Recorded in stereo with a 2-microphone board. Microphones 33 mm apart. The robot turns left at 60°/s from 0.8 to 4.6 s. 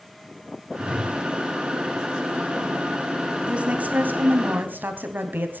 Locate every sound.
0.8 s a whoosh: 30° right (ahead or behind), 7.5 m; by 1.2 s 5° right (ahead or behind), 7.5 m
3.5 s a woman speaking: 35° right, 3 m; by 5.6 s 100° right, 3 m